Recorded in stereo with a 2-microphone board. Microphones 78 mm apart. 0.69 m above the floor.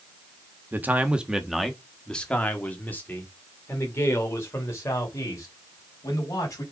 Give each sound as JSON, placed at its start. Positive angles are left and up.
{"t": 0.7, "sound": "a man speaking", "side_deg": -25, "distance_m": 1.2}